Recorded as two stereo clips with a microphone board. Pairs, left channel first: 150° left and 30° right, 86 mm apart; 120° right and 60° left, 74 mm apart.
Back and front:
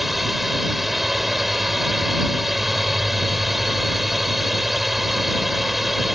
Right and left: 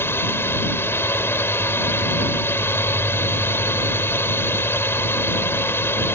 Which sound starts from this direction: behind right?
A drone, at 0.0 s.